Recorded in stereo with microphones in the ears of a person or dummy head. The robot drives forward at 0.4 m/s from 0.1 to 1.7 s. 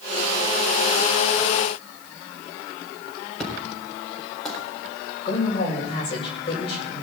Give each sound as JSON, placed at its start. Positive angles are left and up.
{"t": 3.4, "sound": "an explosion", "side_deg": 5, "distance_m": 4.0}
{"t": 5.2, "sound": "a man speaking", "side_deg": 35, "distance_m": 6.5}